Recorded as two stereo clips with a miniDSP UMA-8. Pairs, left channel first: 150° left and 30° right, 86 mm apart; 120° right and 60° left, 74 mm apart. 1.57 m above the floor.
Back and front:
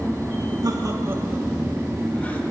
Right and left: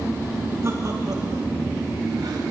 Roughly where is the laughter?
Ahead.